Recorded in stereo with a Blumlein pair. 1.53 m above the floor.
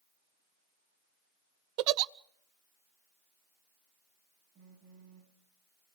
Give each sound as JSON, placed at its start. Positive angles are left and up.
{"t": 1.8, "sound": "a giggle", "azimuth_deg": -40, "distance_m": 0.6}
{"t": 4.5, "sound": "a phone buzzing", "azimuth_deg": -35, "distance_m": 2.5}